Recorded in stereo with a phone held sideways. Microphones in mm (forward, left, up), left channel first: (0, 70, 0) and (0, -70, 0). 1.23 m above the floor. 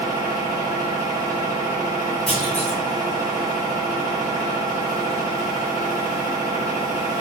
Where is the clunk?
40° left (ahead or behind), 1.1 m.